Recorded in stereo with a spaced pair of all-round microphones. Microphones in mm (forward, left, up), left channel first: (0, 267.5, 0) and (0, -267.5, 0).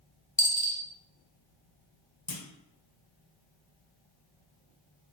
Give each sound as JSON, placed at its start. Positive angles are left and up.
{"t": 0.4, "sound": "a dropped coin", "side_deg": 15, "distance_m": 0.6}
{"t": 2.3, "sound": "a clunk", "side_deg": 65, "distance_m": 0.7}